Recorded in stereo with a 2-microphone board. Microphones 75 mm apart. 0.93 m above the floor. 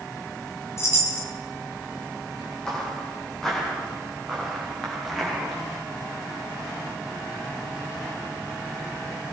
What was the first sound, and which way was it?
A chime, 40° left (ahead or behind).